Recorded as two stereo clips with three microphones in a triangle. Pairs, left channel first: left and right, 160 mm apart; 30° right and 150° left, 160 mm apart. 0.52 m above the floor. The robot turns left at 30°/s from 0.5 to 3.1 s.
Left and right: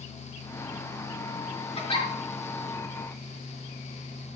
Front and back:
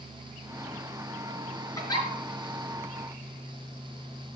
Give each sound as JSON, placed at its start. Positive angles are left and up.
{"t": 1.8, "sound": "a giggle", "azimuth_deg": 40, "distance_m": 4.5}